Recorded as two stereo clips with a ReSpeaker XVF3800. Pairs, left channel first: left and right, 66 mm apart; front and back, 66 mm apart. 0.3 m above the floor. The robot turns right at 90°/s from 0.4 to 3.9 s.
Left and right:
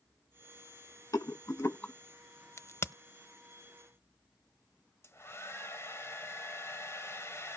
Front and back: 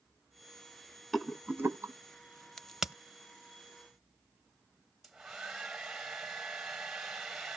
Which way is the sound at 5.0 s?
95° left.